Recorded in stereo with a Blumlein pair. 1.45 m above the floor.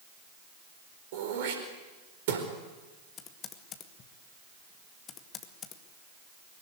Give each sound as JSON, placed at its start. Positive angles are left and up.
{"t": 1.1, "sound": "throat clearing", "azimuth_deg": -55, "distance_m": 4.5}
{"t": 3.2, "sound": "typing on a keyboard", "azimuth_deg": 30, "distance_m": 2.0}